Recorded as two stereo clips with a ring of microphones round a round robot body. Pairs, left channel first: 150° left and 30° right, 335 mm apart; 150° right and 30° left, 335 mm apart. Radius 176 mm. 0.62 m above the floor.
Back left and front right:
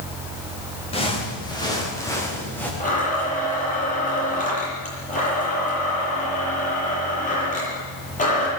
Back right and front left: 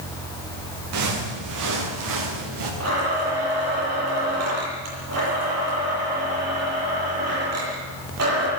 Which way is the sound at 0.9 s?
75° left.